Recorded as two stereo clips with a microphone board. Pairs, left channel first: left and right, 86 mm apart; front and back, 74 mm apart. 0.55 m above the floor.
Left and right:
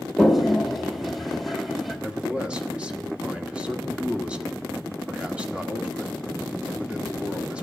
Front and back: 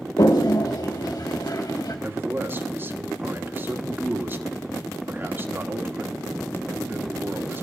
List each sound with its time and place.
0.2 s a toilet flushing: straight ahead, 1.8 m
2.0 s a man speaking: 155° right, 1.4 m